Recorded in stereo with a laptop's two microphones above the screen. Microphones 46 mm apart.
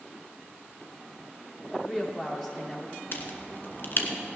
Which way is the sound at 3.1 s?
50° left (ahead or behind).